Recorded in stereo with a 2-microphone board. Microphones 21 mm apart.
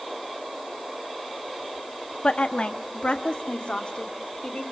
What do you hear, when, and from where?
2.2 s a woman speaking: 60° left (ahead or behind), 1.6 m; by 4.6 s 65° left (ahead or behind), 3 m